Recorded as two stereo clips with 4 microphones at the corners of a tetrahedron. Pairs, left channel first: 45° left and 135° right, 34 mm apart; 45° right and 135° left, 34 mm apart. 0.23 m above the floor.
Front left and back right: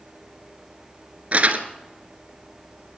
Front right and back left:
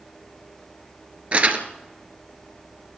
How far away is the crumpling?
About 2.0 m.